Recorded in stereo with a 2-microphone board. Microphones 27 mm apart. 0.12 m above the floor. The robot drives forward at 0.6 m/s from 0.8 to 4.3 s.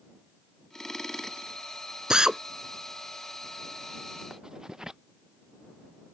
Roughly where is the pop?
I don't hear a pop.